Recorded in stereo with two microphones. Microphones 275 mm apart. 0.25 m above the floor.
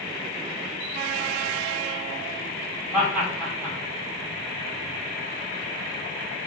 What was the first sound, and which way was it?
Laughter, 5° right (ahead or behind).